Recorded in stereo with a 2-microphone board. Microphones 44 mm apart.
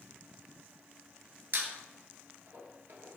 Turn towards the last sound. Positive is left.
turn(degrees=-55)  # may be behind; listen again after turning